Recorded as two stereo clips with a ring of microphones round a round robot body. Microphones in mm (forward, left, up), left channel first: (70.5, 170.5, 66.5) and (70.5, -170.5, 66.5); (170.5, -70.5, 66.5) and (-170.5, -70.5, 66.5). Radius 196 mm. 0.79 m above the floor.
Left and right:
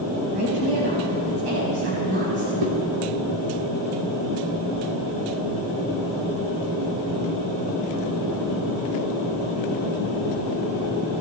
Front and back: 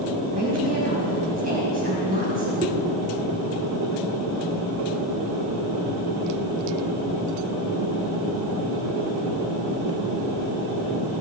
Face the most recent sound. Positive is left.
turn(degrees=-110)